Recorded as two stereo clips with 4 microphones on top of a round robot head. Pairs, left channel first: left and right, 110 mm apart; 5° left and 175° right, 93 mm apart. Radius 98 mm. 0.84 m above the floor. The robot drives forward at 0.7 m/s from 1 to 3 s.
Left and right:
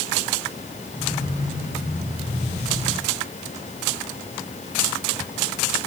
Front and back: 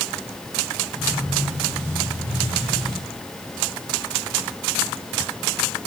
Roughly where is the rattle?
No rattle in this recording.